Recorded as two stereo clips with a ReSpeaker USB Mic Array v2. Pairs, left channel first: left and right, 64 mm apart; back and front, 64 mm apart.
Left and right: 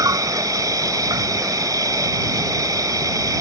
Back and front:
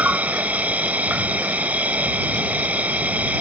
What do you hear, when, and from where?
0.0 s an insect: 65° right